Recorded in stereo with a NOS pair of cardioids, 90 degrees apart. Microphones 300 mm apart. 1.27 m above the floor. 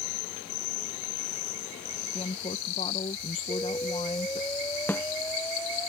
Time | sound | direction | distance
2.1 | a woman speaking | 25° left | ?
3.5 | an explosion | 10° left | ?
4.9 | a snare drum | 5° left | ?